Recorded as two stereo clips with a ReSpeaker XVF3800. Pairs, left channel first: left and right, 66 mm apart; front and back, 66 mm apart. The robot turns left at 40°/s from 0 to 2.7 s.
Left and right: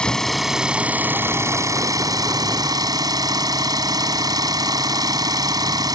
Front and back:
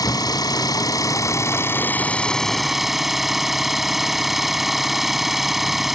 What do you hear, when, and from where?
0.0 s an engine running: 15° left; by 6.0 s 95° right